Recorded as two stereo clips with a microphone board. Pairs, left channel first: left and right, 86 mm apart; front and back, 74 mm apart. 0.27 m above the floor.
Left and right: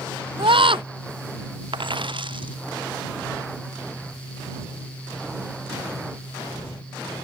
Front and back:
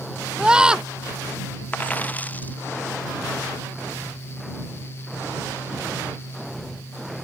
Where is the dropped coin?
70° right.